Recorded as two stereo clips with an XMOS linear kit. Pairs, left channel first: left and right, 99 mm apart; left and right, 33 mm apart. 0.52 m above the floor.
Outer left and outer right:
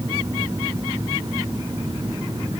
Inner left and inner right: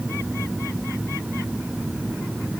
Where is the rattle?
I don't hear a rattle.